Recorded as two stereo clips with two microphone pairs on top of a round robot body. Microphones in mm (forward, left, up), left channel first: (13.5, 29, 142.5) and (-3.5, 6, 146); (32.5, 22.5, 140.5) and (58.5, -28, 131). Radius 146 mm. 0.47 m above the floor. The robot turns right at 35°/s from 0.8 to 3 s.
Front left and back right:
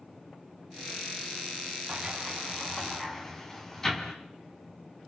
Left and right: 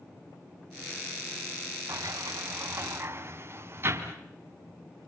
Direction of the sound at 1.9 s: 60° right.